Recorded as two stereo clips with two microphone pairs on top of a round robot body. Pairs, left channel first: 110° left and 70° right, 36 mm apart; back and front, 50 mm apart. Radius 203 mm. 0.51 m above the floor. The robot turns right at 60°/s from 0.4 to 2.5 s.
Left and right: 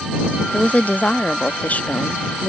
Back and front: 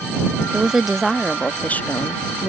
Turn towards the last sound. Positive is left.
turn(degrees=-170)